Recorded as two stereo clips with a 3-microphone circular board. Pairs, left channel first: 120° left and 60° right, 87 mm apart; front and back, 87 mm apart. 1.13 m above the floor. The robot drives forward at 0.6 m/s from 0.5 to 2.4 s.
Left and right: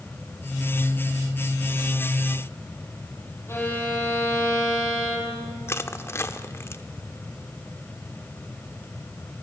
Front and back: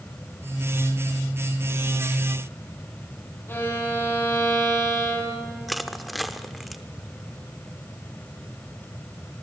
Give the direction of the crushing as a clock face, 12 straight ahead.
9 o'clock.